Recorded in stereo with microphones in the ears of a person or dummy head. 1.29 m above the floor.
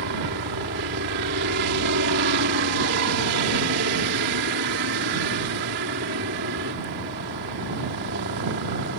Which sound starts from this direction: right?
A helicopter, at 0.0 s.